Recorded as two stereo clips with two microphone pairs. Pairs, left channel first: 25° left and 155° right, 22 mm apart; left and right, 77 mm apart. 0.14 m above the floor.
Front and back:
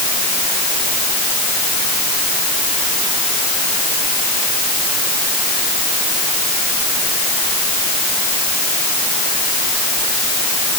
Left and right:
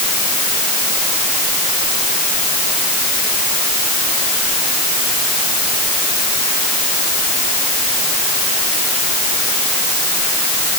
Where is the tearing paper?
I don't hear tearing paper.